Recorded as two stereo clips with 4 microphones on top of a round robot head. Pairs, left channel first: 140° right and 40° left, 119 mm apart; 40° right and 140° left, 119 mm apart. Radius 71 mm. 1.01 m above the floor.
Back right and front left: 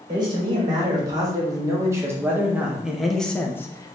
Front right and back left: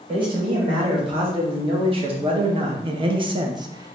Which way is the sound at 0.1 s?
90° left.